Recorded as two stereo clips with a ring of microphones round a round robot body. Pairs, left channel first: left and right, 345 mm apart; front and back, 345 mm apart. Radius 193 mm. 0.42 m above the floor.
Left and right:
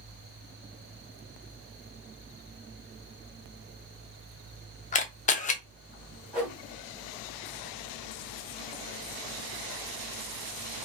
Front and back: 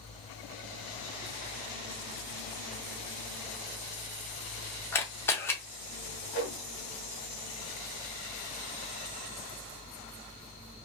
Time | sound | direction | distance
4.9 | a camera shutter | 70° left | 0.5 m
6.3 | a whoosh | 5° right | 1.5 m